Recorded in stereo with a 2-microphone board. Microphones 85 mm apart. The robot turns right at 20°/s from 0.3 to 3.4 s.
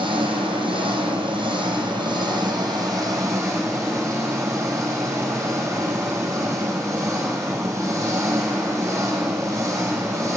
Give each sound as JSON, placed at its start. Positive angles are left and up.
{"t": 0.0, "sound": "an engine running", "azimuth_deg": -95, "distance_m": 5.0}